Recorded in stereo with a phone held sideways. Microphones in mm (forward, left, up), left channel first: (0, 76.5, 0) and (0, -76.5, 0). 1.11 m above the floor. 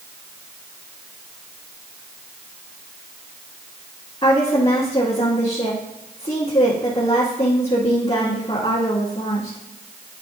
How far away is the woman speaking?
About 1.9 m.